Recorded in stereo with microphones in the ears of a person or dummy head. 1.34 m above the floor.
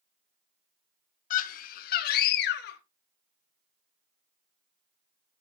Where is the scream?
45° left (ahead or behind), 1.1 m; by 2.8 s 60° left (ahead or behind), 1.9 m.